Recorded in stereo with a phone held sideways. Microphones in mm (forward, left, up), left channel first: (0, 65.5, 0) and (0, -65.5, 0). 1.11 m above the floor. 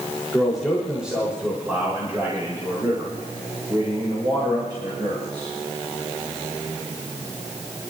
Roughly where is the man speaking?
Centre.